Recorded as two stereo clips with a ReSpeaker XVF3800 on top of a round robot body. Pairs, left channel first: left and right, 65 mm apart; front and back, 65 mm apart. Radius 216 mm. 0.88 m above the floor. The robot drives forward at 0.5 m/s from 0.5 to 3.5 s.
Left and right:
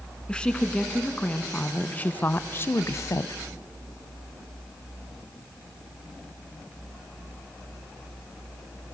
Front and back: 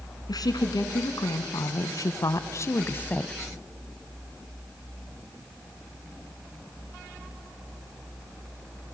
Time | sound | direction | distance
0.3 | a woman speaking | 15° left | 1.6 m